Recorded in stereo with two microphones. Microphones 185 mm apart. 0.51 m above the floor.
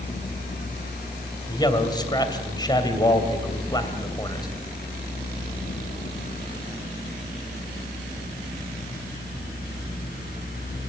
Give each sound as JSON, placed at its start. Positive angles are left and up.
{"t": 1.5, "sound": "a man speaking", "side_deg": 25, "distance_m": 2.5}